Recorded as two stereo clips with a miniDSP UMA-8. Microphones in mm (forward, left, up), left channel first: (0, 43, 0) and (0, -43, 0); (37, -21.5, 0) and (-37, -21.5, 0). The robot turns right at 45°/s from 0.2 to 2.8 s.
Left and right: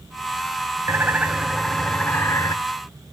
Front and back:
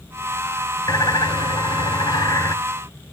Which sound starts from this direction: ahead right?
A bird, at 0.9 s.